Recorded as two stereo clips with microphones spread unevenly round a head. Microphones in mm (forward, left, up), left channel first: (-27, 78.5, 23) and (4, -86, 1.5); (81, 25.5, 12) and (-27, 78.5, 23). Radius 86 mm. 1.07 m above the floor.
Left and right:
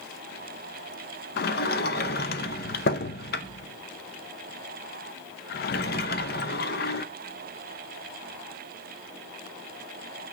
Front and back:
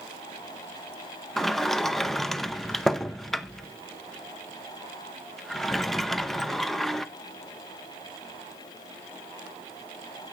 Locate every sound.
1.4 s a sliding door: 65° left, 0.7 m